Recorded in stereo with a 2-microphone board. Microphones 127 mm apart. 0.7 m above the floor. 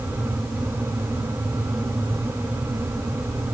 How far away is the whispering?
No whispering in this recording.